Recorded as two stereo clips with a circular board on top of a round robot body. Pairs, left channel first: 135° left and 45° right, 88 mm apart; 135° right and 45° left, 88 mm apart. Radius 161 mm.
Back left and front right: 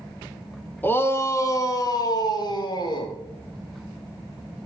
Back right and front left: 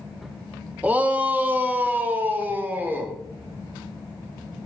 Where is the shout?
95° left, 1.3 m; by 3.1 s 115° left, 2.5 m.